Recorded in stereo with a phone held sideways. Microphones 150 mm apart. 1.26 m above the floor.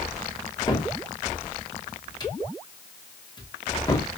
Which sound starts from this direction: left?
A cupboard door, at 0.7 s.